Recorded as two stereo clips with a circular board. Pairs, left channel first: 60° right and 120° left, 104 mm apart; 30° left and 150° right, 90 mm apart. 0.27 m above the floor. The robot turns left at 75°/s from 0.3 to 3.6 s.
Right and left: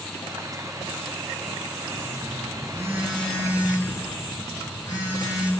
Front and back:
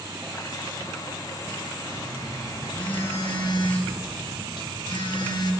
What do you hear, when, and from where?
1.9 s a phone buzzing: 125° left, 5 m; by 5.5 s 5° right, 5 m